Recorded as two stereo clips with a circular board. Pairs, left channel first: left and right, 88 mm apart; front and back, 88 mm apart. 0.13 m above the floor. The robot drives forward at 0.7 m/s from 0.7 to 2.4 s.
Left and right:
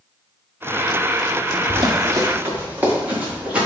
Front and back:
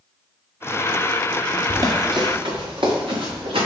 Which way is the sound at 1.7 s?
125° right.